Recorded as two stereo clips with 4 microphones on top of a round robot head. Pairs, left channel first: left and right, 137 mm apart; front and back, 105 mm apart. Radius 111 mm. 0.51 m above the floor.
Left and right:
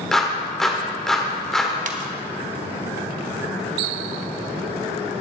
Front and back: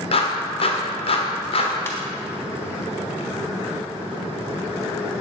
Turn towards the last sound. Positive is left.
turn(degrees=-70)